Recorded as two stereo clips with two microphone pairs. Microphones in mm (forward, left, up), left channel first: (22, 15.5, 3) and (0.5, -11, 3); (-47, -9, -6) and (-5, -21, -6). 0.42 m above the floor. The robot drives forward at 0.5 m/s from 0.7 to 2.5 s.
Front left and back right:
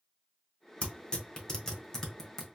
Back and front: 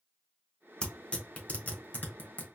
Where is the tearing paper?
105° left, 1.1 m; by 2.5 s 135° left, 1.5 m.